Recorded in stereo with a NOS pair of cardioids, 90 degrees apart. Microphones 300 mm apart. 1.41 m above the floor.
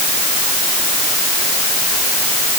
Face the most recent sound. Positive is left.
No sound to turn to.